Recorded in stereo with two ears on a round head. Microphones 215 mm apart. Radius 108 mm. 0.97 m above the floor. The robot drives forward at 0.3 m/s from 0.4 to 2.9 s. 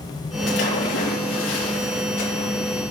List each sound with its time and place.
0.5 s a splash: 55° left (ahead or behind), 4 m; by 2.5 s 60° left (ahead or behind), 3.5 m